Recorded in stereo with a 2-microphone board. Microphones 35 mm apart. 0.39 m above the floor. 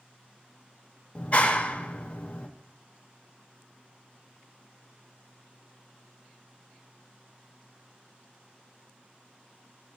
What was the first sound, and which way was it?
A clap, 35° left (ahead or behind).